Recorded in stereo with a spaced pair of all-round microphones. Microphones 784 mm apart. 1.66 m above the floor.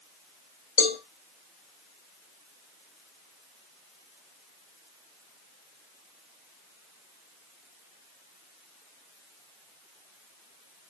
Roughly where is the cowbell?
Left.